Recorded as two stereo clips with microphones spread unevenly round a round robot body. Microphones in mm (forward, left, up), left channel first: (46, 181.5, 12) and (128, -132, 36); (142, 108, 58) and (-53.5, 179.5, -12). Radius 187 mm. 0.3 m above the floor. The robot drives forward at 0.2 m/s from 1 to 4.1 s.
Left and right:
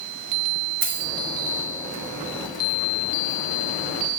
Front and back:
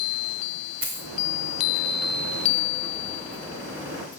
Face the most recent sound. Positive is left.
turn(degrees=-150)